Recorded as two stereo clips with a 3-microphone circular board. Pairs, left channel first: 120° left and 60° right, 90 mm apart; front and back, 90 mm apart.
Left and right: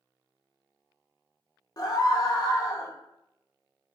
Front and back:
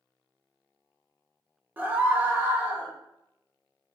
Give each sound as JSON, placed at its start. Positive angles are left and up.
{"t": 1.8, "sound": "a scream", "azimuth_deg": 120, "distance_m": 0.7}